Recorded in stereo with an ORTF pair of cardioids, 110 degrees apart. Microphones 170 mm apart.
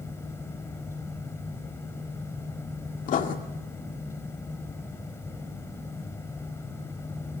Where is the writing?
55° left, 2 m.